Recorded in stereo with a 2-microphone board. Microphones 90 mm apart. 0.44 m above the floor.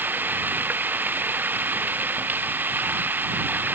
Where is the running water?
20° right (ahead or behind).